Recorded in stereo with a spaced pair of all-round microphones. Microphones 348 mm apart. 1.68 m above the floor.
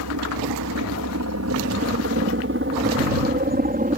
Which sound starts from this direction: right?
A helicopter, at 0.0 s.